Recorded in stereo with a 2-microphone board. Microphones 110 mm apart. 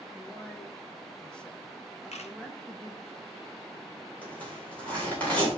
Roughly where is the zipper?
Centre.